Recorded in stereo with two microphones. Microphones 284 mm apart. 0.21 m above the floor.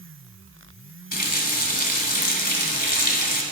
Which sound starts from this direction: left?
A running tap, at 1.1 s.